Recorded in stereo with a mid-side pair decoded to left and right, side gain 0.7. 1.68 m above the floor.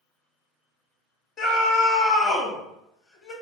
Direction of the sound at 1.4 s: 35° left.